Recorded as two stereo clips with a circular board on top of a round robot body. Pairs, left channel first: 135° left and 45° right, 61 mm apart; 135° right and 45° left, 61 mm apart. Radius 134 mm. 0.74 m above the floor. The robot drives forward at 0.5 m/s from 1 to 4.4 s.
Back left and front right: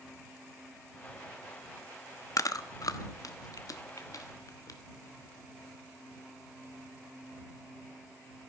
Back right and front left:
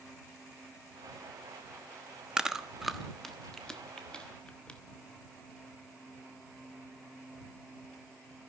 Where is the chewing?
120° left, 1.1 m; by 4.8 s 150° left, 1.8 m.